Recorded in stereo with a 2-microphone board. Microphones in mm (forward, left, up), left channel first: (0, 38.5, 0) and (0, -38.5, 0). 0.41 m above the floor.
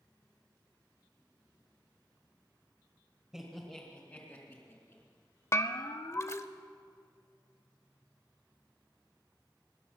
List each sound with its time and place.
3.3 s laughter: 5° right (ahead or behind), 1.6 m; by 5.0 s 45° left (ahead or behind), 3.5 m
5.5 s a bell: 35° left (ahead or behind), 0.6 m